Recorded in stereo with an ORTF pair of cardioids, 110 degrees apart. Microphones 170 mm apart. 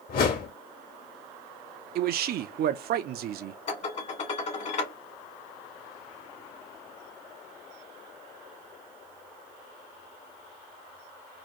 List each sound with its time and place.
0.1 s a whoosh: 65° left, 2 m
1.9 s a man speaking: 65° right, 0.8 m
3.7 s dishes clattering: 45° left, 1.8 m